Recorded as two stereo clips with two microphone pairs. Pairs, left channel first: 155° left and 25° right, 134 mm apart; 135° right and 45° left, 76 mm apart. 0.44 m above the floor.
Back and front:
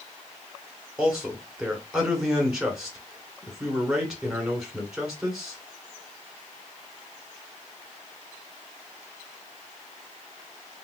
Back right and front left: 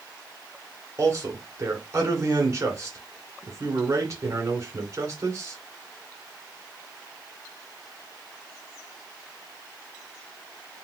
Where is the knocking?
I don't hear knocking.